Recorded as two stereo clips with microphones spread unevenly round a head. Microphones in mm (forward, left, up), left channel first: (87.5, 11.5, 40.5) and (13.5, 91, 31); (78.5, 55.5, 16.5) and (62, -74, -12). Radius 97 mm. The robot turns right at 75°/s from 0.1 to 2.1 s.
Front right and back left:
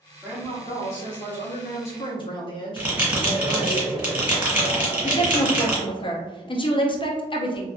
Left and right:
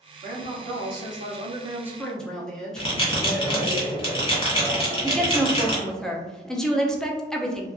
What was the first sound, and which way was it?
A woman speaking, 145° right.